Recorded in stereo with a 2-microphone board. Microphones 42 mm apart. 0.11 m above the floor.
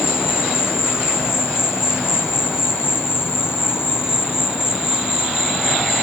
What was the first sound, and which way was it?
An insect, 70° left (ahead or behind).